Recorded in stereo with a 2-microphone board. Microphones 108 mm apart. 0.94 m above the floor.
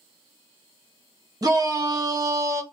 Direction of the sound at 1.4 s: 35° right (ahead or behind).